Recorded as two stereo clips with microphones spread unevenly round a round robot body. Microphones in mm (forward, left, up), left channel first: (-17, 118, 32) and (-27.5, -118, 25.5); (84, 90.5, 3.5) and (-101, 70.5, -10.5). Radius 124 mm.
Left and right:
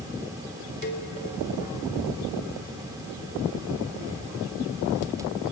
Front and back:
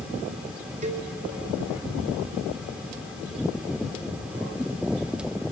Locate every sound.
0.8 s a cowbell: 135° left, 2.5 m